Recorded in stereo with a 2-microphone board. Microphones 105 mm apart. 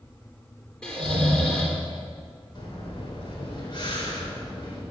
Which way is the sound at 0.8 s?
10° left (ahead or behind).